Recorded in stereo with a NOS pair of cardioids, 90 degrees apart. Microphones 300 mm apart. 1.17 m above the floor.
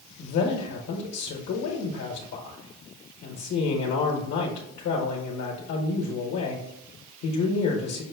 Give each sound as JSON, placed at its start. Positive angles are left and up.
{"t": 0.2, "sound": "a man speaking", "azimuth_deg": 65, "distance_m": 1.0}